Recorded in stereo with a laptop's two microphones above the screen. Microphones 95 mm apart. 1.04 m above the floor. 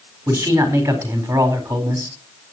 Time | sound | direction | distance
0.3 | a man speaking | 30° right (ahead or behind) | 3.5 m